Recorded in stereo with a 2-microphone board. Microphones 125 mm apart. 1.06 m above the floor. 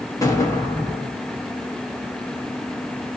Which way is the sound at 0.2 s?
25° left (ahead or behind).